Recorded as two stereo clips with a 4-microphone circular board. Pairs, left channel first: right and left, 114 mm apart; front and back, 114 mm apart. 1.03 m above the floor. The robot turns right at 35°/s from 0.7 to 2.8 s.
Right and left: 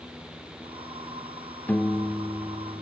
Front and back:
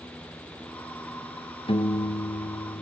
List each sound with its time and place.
1.7 s a piano: 20° right, 1.2 m; by 2.8 s 20° left, 1.2 m